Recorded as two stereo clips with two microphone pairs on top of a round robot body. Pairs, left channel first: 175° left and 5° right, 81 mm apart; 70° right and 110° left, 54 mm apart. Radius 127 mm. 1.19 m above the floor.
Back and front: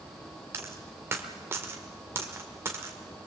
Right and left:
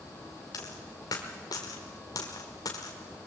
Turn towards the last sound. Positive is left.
turn(degrees=-65)